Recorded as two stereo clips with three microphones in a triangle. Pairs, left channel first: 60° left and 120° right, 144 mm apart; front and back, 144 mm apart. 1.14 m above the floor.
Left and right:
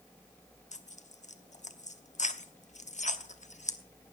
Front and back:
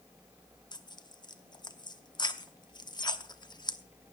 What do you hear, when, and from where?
0.7 s tearing paper: 55° left, 0.9 m